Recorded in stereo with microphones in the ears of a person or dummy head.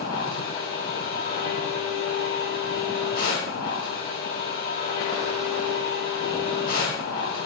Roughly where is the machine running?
Left.